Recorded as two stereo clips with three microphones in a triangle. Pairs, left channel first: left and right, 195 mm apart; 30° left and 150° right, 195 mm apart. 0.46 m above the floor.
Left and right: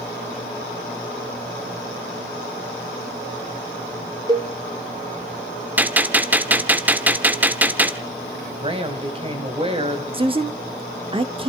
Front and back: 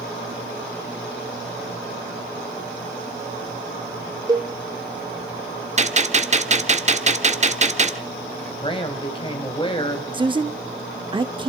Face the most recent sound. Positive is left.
turn(degrees=-115)